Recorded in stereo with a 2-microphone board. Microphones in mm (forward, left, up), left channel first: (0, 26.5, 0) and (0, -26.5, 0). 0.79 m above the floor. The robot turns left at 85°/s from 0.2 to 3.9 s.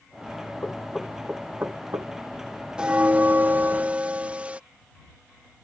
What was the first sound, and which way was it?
Knocking, 35° left (ahead or behind).